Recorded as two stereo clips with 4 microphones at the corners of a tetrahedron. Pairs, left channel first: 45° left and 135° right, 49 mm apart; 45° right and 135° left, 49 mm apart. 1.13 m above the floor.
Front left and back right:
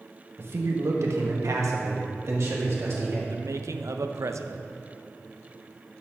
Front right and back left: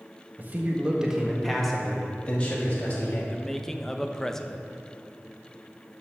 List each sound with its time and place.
0.4 s a man speaking: 175° right, 1.4 m; by 3.2 s 100° right, 2.5 m
3.3 s a man speaking: 125° right, 0.6 m